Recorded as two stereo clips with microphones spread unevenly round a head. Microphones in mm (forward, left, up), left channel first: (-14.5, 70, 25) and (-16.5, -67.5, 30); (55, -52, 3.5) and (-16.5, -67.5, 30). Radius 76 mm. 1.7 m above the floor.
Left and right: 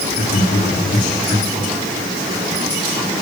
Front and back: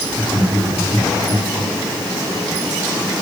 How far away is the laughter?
About 4.5 m.